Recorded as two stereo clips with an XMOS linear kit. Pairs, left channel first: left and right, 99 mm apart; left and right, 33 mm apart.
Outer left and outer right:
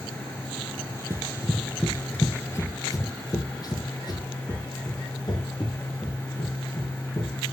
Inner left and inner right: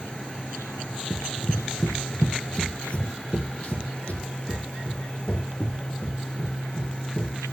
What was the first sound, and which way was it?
Running footsteps, 25° right (ahead or behind).